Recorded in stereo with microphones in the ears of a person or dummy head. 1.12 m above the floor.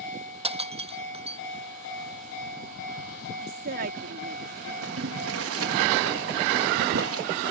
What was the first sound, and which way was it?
Breaking glass, 25° right (ahead or behind).